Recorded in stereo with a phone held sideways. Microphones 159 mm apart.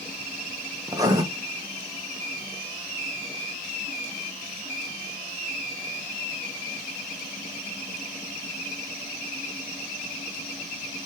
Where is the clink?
I don't hear a clink.